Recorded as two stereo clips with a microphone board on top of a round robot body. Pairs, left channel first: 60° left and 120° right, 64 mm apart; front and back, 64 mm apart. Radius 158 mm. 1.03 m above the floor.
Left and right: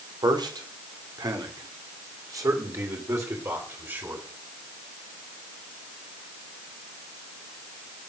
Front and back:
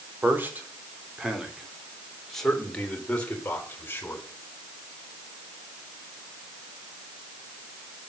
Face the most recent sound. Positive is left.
turn(degrees=-60)